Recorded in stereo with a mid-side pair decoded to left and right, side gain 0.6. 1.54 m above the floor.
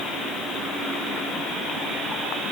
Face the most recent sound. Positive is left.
No sound to turn to.